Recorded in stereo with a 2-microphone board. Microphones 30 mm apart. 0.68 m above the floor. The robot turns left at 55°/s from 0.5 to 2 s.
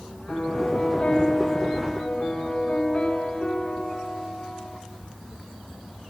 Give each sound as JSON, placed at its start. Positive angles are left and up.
{"t": 0.3, "sound": "a piano", "azimuth_deg": 110, "distance_m": 7.0}